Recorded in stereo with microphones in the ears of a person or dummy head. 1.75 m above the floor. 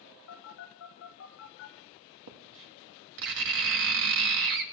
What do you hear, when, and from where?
0.3 s a phone buzzing: 75° left (ahead or behind), 4 m
2.3 s writing: 55° right (ahead or behind), 1.5 m